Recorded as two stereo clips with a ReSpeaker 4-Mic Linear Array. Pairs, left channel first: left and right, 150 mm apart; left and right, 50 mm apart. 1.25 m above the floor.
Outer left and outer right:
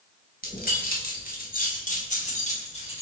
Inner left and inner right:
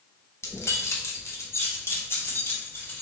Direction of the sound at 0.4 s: 80° left.